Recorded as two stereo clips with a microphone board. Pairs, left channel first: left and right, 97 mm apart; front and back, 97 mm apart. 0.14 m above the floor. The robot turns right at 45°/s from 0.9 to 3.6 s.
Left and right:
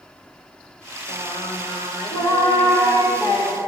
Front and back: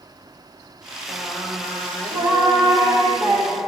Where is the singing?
55° left, 2.5 m; by 3.6 s 170° left, 2.5 m.